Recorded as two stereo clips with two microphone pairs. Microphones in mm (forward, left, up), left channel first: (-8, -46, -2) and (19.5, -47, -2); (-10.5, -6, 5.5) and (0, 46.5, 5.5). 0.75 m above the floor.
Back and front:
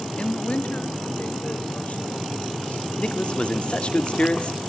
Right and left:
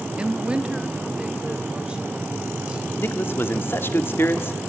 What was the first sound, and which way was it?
A woman speaking, 145° left.